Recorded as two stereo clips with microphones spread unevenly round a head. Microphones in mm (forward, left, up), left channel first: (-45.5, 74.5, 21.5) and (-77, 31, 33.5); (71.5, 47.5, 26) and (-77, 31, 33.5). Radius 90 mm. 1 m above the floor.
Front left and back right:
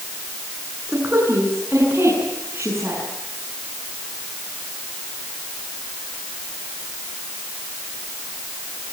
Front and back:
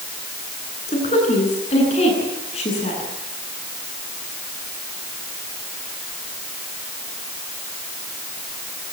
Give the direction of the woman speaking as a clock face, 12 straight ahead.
2 o'clock.